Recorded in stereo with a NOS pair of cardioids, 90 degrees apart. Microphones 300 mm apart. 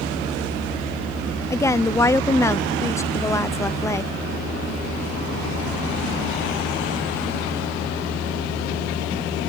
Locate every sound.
1.5 s a woman speaking: 10° left